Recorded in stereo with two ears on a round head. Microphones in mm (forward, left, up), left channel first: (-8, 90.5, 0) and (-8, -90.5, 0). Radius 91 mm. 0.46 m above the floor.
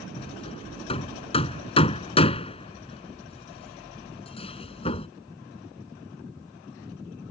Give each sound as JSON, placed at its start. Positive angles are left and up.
{"t": 0.2, "sound": "hammering", "side_deg": 30}